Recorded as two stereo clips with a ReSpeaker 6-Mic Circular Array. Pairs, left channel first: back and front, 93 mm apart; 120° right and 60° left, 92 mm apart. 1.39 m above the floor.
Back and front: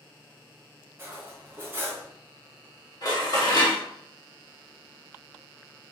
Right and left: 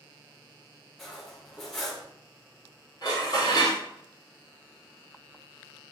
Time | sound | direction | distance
1.0 | cutlery clinking | 35° right | 0.5 m
3.0 | dishes clattering | 155° right | 0.9 m